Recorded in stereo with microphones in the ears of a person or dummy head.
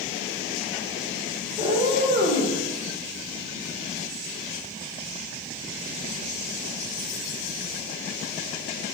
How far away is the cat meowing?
About 1.2 m.